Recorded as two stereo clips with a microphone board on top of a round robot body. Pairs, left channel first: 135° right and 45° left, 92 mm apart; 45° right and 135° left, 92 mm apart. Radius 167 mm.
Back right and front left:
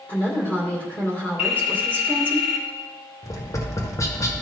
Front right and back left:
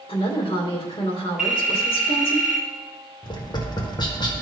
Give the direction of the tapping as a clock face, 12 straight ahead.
3 o'clock.